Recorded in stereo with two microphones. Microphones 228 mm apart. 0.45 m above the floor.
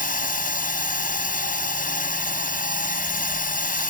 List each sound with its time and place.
0.0 s a drone: 35° left (ahead or behind)